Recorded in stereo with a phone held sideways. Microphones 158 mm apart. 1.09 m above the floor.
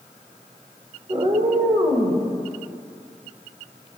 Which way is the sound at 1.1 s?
35° right (ahead or behind).